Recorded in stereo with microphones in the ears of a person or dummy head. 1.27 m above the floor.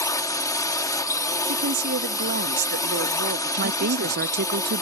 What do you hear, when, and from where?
0.0 s a drone: 10° left (ahead or behind)
1.5 s a woman speaking: 60° right (ahead or behind)
3.6 s a woman speaking: 55° right (ahead or behind)